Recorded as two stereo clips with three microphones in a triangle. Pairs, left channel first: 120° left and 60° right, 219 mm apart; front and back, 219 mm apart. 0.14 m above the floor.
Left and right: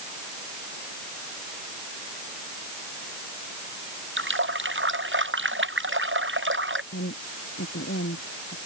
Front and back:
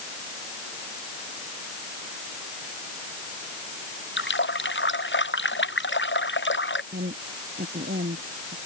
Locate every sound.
4.2 s a running tap: 30° right
6.9 s a woman speaking: 140° left